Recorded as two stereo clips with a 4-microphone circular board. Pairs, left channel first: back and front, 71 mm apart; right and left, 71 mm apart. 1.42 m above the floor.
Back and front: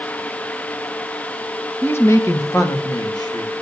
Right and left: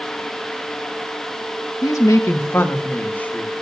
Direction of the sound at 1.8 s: 120° right.